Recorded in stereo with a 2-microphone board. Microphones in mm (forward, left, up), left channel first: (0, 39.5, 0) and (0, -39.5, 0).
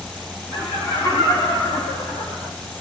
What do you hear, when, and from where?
0.5 s laughter: 50° left (ahead or behind), 10 m; by 2.5 s 35° left (ahead or behind), 7.5 m